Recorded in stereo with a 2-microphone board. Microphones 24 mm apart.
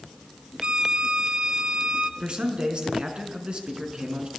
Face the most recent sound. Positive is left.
turn(degrees=-45)  # may be behind; listen again after turning